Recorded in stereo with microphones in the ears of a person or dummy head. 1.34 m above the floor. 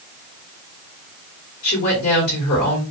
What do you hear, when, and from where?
1.6 s a woman speaking: 55° left (ahead or behind), 3 m